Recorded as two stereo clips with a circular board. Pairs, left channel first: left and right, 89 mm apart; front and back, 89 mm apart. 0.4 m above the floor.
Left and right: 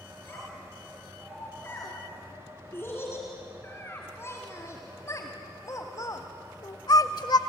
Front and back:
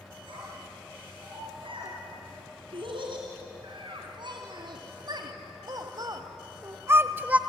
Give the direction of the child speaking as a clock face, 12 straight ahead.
7 o'clock.